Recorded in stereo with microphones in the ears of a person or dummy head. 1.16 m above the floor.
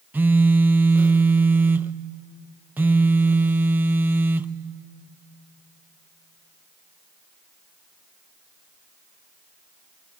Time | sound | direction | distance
0.1 | a phone buzzing | 10° right (ahead or behind) | 0.5 m